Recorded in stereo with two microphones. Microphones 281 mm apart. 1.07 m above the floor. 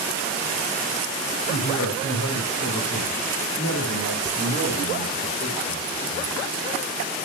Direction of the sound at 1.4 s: 75° left (ahead or behind).